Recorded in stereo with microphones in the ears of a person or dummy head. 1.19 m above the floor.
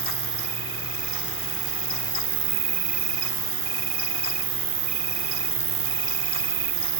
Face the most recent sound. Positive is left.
turn(degrees=-35)  # may be behind; listen again after turning